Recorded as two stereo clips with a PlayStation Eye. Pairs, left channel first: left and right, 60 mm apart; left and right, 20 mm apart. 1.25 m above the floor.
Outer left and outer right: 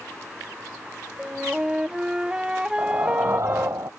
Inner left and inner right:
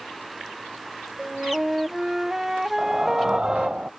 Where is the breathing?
55° right (ahead or behind).